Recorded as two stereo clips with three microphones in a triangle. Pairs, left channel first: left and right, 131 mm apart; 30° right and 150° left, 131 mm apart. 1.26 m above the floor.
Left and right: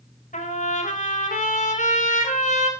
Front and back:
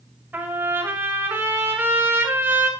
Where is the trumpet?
75° left, 5 m.